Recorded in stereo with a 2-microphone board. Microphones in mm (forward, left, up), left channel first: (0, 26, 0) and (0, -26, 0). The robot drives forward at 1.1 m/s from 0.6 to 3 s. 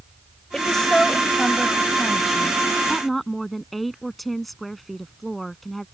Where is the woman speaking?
15° left (ahead or behind); by 5.8 s 5° left (ahead or behind).